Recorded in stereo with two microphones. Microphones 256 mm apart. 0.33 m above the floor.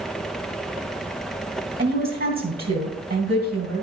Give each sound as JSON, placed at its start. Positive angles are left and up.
{"t": 1.8, "sound": "a woman speaking", "side_deg": -40, "distance_m": 2.5}